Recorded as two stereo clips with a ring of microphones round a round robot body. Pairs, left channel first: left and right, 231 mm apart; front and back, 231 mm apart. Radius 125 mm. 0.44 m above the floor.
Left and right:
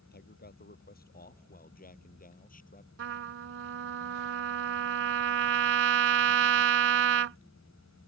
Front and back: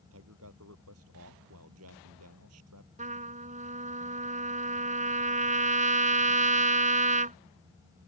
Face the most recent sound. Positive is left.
turn(degrees=-120)